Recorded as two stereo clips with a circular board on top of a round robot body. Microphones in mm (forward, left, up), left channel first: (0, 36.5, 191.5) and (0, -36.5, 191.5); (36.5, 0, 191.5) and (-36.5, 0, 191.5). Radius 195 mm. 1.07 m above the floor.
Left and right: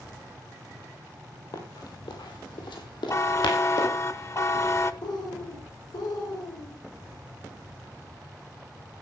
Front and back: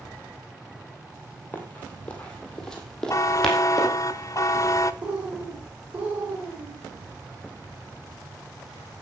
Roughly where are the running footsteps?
Ahead left.